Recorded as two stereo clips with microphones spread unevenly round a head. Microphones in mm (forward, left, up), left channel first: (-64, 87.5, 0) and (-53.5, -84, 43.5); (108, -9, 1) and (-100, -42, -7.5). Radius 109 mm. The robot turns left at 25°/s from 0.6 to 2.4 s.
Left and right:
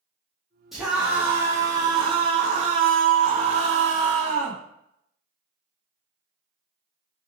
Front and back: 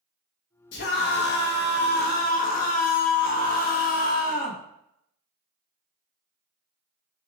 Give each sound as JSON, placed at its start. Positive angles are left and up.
{"t": 0.7, "sound": "a scream", "azimuth_deg": 15, "distance_m": 1.0}